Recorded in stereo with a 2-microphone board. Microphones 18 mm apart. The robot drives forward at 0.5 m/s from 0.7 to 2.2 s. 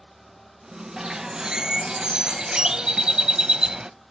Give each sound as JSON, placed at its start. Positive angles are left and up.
{"t": 1.0, "sound": "a bird", "side_deg": -45, "distance_m": 0.9}